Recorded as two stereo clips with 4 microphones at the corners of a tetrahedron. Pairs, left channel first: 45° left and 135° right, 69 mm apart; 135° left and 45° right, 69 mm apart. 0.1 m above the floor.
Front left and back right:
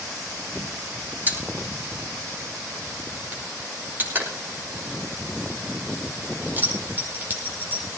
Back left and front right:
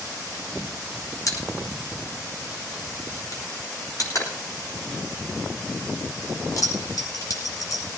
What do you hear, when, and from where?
1.3 s a pop: 165° left, 5 m